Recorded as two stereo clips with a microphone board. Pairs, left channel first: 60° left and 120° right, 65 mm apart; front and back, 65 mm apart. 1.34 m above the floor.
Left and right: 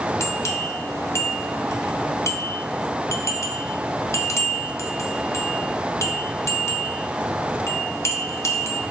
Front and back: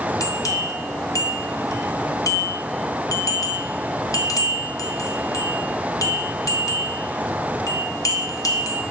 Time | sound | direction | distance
0.2 | a bell | 20° left | 0.6 m